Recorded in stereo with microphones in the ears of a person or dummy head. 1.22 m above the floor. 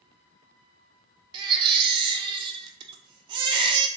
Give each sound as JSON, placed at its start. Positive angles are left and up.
{"t": 1.3, "sound": "a baby crying", "side_deg": -25, "distance_m": 0.5}